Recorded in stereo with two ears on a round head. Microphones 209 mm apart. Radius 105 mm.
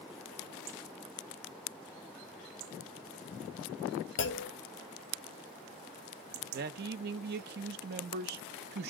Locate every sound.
4.2 s a clunk: 50° left (ahead or behind), 0.9 m
6.5 s a man speaking: 40° right (ahead or behind), 0.5 m